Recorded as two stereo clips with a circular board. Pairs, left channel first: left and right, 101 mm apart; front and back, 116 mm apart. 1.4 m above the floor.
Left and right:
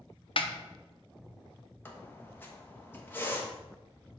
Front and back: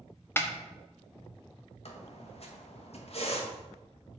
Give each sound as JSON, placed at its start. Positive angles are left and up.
{"t": 0.4, "sound": "a snare drum", "azimuth_deg": 70, "distance_m": 0.7}
{"t": 1.9, "sound": "a squeak", "azimuth_deg": 20, "distance_m": 1.1}